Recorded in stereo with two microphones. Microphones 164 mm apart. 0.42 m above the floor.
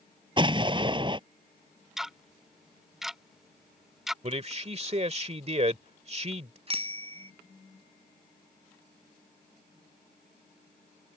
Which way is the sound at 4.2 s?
40° right (ahead or behind).